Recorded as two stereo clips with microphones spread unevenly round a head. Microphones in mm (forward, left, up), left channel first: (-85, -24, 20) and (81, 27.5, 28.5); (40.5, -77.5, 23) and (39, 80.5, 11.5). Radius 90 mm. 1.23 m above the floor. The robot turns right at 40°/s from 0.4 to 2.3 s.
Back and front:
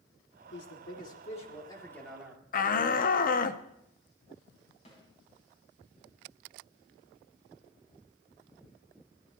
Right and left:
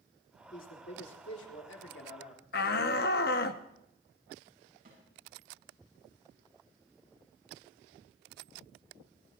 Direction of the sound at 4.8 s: 140° left.